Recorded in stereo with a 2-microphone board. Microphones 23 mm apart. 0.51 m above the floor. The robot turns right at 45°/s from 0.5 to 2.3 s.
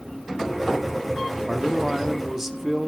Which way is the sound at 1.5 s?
10° right (ahead or behind).